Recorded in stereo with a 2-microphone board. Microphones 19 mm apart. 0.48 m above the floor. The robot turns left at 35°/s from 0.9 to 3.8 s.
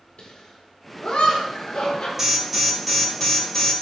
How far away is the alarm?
About 1.8 m.